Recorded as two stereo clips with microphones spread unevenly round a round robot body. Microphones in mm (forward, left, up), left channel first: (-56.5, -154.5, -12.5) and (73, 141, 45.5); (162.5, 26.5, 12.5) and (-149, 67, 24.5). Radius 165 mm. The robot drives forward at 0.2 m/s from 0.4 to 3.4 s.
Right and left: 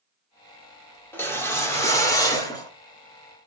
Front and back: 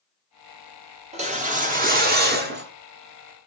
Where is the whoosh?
155° right, 1.3 m; by 2.7 s 165° right, 1.4 m.